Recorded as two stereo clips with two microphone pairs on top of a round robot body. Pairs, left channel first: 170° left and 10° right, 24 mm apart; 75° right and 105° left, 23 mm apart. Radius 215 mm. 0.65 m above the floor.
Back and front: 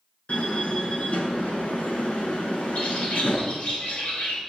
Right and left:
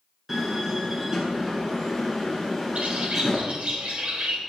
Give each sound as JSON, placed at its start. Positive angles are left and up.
{"t": 0.3, "sound": "a door slam", "azimuth_deg": -175, "distance_m": 7.5}
{"t": 2.8, "sound": "a bird", "azimuth_deg": 130, "distance_m": 5.5}